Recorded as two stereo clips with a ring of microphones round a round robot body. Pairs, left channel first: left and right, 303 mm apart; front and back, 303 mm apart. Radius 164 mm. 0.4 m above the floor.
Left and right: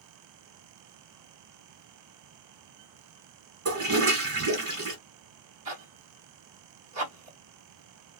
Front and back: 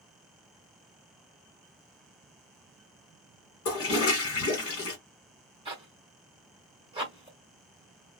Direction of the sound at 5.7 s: 110° right.